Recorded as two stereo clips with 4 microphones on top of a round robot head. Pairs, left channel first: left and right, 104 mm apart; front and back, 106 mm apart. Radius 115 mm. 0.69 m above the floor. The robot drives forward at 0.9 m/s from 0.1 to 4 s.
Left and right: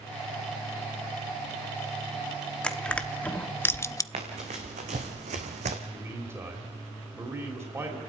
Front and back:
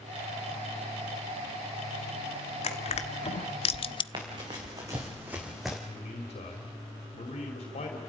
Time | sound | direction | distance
2.6 | crushing | 10° left | 1.6 m
4.1 | running footsteps | 125° right | 3 m
5.9 | a man speaking | 25° right | 3 m